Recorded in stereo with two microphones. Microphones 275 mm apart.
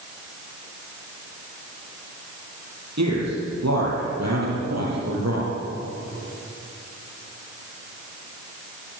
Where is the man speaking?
75° right (ahead or behind), 9 m; by 5.5 s 70° right (ahead or behind), 8 m.